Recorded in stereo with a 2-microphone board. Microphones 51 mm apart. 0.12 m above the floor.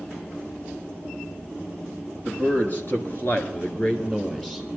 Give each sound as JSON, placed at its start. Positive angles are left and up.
{"t": 2.2, "sound": "a man speaking", "side_deg": 35, "distance_m": 2.5}